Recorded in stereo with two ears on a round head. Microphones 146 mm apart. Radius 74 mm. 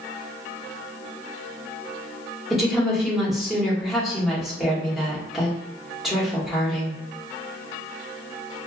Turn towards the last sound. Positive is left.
turn(degrees=0)  # may be behind; listen again after turning